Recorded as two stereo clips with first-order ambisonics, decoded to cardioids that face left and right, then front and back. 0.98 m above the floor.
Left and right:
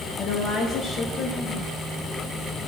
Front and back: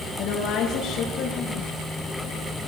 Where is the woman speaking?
40° left, 1.0 m.